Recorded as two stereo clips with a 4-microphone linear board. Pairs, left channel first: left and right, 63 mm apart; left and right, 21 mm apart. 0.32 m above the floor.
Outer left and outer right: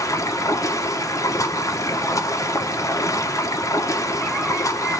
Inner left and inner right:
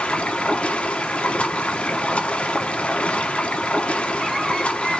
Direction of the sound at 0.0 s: 60° left (ahead or behind).